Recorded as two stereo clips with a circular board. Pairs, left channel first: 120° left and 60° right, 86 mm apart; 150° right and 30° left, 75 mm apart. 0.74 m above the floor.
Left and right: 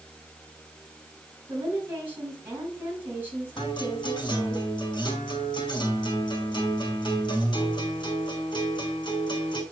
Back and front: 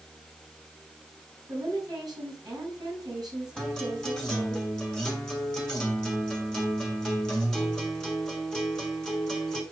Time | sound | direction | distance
1.5 | a woman speaking | 5° left | 5 m
3.6 | a guitar | 125° left | 2.5 m